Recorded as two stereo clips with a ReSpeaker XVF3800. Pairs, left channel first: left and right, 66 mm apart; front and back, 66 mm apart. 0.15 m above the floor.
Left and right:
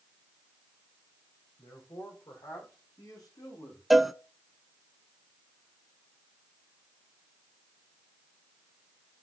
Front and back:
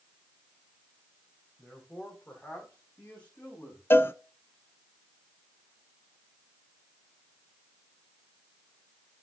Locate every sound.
1.6 s a man speaking: 80° left, 6.5 m; by 3.8 s 65° left, 9 m
3.9 s a cowbell: 5° right, 0.6 m